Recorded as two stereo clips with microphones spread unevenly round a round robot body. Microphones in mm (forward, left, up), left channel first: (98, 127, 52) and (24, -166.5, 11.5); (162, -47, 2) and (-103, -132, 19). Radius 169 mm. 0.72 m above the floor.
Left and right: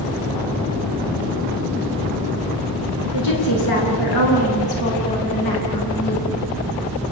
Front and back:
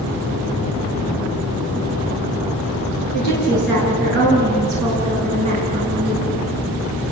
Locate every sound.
3.1 s a woman speaking: 80° left, 10 m; by 6.3 s 85° left, 7.5 m